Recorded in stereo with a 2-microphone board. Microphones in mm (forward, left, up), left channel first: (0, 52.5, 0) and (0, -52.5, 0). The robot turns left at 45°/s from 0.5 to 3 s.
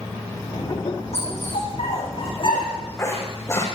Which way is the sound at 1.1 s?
70° left (ahead or behind).